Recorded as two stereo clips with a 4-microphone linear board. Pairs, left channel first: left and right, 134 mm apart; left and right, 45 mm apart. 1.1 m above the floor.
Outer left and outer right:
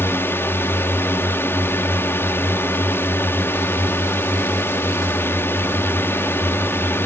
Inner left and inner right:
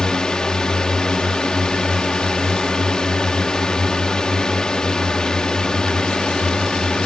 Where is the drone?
15° left (ahead or behind).